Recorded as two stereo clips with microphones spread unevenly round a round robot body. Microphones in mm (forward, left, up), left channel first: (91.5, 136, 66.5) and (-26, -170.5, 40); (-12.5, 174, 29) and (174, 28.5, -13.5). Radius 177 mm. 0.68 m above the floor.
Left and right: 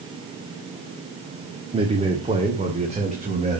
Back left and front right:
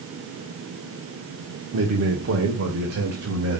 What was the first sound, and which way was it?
A man speaking, 40° right.